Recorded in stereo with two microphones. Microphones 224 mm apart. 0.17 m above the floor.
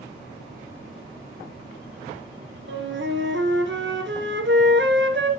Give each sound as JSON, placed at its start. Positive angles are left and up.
{"t": 2.7, "sound": "a flute", "side_deg": -55, "distance_m": 1.5}